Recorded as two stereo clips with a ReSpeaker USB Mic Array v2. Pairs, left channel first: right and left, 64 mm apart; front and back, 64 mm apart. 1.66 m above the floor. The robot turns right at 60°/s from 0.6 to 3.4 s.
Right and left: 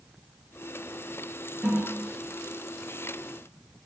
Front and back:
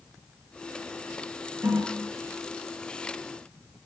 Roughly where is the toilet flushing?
Behind left.